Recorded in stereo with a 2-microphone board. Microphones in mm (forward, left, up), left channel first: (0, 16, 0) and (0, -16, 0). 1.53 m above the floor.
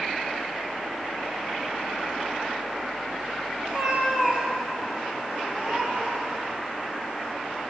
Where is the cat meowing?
20° right (ahead or behind), 1.5 m; by 6.4 s 30° right (ahead or behind), 5.5 m.